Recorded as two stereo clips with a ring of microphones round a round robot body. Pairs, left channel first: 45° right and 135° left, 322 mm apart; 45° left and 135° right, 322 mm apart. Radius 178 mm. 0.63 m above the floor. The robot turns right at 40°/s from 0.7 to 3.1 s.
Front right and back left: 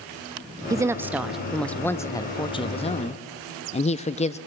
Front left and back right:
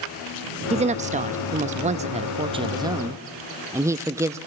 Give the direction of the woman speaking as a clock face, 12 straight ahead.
5 o'clock.